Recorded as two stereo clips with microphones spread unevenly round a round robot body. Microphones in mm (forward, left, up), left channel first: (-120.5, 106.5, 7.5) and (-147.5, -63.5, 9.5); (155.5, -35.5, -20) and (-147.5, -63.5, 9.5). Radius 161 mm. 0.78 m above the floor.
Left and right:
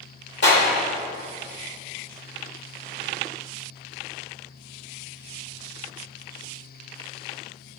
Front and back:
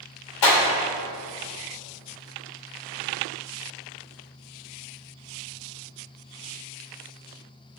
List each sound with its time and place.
0.4 s a clap: 35° left, 2.5 m